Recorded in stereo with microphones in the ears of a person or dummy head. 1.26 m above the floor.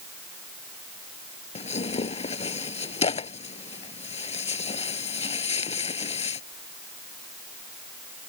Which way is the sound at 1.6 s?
30° left (ahead or behind).